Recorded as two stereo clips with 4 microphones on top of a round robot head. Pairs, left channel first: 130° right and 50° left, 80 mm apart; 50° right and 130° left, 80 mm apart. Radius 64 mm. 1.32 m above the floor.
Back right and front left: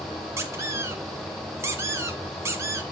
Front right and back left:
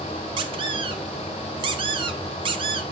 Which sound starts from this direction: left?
A squeak, at 0.4 s.